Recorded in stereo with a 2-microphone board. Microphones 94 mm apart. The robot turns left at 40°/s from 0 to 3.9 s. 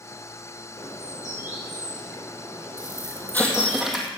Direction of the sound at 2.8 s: 40° left.